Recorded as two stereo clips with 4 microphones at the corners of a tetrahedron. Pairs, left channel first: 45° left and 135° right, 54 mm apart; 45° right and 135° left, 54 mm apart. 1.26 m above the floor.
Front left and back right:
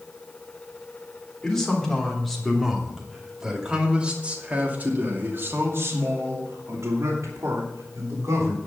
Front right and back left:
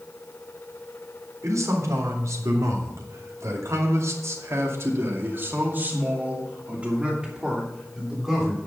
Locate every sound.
1.4 s a man speaking: 125° left, 3.5 m; by 8.6 s 140° right, 3.5 m